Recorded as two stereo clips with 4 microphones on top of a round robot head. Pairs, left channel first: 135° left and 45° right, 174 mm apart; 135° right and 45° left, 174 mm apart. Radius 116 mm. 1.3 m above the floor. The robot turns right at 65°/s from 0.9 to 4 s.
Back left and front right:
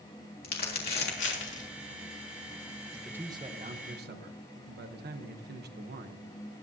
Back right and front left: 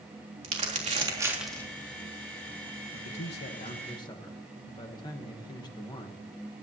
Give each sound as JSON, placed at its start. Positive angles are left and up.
{"t": 0.4, "sound": "crumpling", "azimuth_deg": 95, "distance_m": 3.5}
{"t": 2.9, "sound": "a man speaking", "azimuth_deg": -140, "distance_m": 1.2}